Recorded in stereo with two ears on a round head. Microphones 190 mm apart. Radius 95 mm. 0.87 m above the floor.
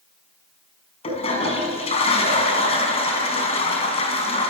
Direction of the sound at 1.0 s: 30° left (ahead or behind).